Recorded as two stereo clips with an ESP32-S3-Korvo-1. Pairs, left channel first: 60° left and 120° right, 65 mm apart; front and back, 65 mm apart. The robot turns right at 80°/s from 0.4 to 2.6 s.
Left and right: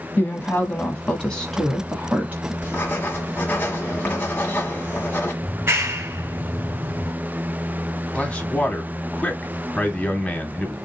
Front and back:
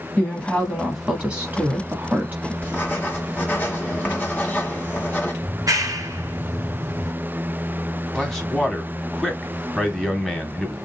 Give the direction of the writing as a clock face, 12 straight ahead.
11 o'clock.